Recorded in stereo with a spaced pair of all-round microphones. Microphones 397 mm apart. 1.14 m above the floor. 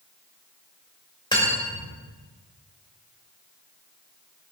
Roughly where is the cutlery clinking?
Centre.